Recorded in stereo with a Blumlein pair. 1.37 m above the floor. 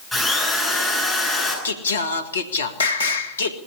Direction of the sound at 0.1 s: Straight ahead.